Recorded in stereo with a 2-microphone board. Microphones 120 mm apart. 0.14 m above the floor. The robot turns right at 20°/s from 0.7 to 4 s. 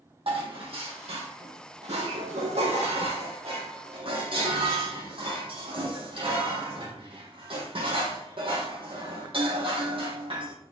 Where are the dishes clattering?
120° right, 4 m; by 10.5 s 55° right, 4 m.